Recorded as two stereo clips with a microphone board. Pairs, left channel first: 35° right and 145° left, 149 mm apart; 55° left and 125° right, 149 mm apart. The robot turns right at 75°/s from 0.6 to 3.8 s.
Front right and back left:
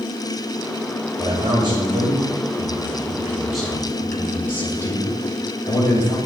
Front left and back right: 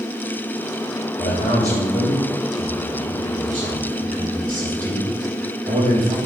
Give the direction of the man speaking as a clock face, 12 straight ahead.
10 o'clock.